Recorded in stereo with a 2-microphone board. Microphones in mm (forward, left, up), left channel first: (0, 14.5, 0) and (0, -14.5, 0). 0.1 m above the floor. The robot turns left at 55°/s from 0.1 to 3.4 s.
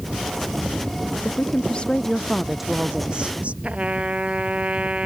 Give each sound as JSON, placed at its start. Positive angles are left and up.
{"t": 1.2, "sound": "a woman speaking", "azimuth_deg": 70}
{"t": 3.6, "sound": "a trumpet", "side_deg": -45}